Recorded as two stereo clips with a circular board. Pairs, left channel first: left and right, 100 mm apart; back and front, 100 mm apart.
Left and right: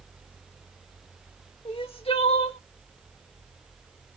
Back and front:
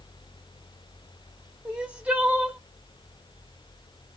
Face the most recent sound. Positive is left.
turn(degrees=75)